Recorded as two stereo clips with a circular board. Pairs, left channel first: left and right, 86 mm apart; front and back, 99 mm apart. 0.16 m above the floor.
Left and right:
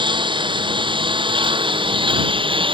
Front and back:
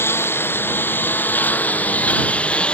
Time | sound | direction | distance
0.0 | a lawn mower | 65° right | ?